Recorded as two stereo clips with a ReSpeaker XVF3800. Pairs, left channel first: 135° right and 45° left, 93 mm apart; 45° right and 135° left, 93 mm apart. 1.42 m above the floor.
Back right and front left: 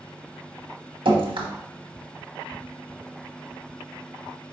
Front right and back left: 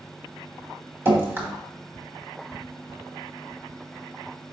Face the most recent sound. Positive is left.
turn(degrees=70)